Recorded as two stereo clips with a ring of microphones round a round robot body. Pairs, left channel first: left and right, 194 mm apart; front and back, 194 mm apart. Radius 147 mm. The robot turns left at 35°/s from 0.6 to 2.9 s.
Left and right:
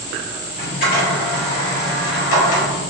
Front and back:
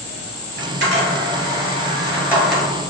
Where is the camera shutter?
160° left, 1.7 m; by 2.6 s 85° left, 1.7 m.